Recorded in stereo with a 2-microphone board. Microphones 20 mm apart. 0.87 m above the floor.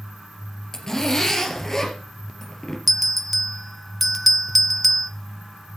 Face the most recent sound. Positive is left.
turn(degrees=5)  # may be behind; listen again after turning